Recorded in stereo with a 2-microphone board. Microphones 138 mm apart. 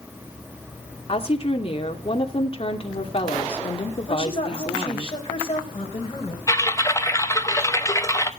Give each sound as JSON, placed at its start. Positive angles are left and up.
{"t": 1.1, "sound": "a woman speaking", "side_deg": 40, "distance_m": 2.5}
{"t": 4.1, "sound": "a woman speaking", "side_deg": 35, "distance_m": 3.0}
{"t": 6.5, "sound": "typing on a keyboard", "side_deg": 20, "distance_m": 1.1}